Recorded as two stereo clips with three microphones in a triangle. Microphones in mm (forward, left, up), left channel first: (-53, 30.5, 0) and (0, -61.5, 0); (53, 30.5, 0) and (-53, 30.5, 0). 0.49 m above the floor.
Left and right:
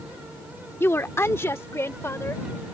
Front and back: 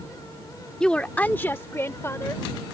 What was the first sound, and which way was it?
A woman speaking, 75° left.